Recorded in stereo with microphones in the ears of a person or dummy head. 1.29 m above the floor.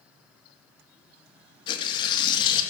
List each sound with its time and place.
1.7 s tearing paper: 25° left (ahead or behind), 1.8 m